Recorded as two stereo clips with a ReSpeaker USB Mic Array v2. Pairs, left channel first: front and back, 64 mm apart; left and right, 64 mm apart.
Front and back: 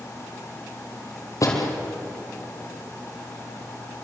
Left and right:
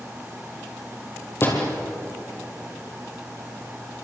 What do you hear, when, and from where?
1.4 s a door slam: 35° left, 4.5 m